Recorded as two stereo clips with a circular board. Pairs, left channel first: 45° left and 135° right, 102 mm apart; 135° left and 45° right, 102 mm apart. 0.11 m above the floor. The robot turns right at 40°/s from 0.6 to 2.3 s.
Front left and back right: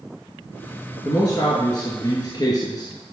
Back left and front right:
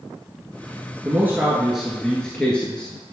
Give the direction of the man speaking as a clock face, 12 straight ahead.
12 o'clock.